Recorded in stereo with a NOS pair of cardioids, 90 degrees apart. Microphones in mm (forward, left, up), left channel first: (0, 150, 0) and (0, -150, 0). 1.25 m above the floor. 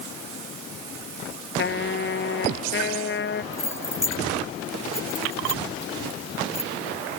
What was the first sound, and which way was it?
A trumpet, 40° left.